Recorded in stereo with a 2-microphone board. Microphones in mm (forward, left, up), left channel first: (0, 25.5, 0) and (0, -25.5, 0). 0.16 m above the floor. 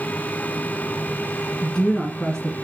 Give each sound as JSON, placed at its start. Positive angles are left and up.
{"t": 1.6, "sound": "a woman speaking", "side_deg": 15, "distance_m": 1.1}